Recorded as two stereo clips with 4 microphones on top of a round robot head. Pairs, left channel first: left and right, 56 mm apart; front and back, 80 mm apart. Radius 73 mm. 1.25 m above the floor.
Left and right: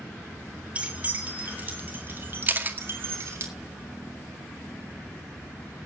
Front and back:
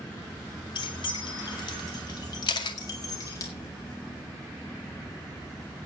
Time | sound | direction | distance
0.8 | keys jangling | 25° right | 3.5 m
2.5 | a camera shutter | 35° right | 2 m